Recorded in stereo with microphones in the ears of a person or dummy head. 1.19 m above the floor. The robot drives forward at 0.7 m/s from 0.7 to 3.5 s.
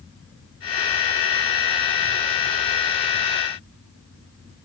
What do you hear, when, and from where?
Only background noise.